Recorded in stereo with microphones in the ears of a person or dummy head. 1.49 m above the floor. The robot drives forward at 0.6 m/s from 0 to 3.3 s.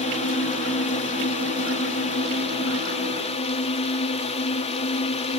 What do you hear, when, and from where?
0.0 s a drone: 35° left (ahead or behind)